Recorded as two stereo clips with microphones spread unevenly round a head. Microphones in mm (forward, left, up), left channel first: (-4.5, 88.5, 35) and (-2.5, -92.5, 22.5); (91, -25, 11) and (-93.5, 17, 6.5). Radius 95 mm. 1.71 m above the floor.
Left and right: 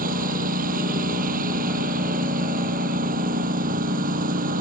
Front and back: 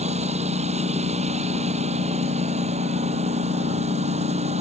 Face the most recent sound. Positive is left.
turn(degrees=-135)